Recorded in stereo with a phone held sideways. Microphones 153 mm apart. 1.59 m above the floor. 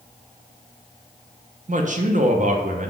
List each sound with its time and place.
1.7 s a man speaking: 55° right (ahead or behind), 0.5 m